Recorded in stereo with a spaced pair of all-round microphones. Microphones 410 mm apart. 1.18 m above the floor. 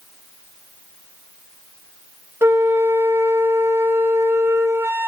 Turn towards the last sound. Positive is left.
turn(degrees=-5)  # may be behind; listen again after turning